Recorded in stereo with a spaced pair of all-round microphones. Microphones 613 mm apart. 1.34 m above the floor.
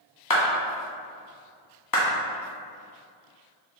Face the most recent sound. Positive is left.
turn(degrees=35)  # may be behind; listen again after turning